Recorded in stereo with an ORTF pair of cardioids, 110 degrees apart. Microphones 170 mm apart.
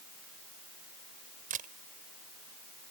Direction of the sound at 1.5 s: 55° right.